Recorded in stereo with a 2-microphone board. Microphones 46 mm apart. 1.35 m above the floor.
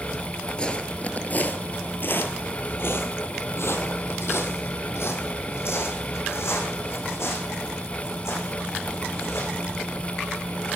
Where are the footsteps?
20° left (ahead or behind), 1.5 m; by 10.8 s 65° left (ahead or behind), 7.5 m.